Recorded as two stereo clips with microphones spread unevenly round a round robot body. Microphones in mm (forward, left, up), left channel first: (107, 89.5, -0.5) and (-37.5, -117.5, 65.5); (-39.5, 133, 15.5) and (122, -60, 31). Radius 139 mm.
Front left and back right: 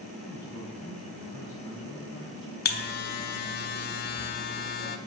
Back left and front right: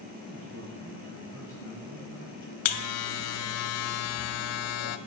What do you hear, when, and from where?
0.2 s a man speaking: 20° right, 3.5 m; by 2.5 s 10° right, 5.5 m
2.6 s a buzzer: 105° left, 0.5 m